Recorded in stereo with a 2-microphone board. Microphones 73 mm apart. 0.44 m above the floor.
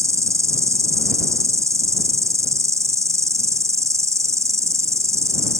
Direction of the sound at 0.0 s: 45° right (ahead or behind).